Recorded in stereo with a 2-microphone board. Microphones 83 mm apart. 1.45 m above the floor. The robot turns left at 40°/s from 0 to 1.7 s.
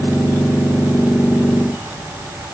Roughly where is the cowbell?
I don't hear a cowbell.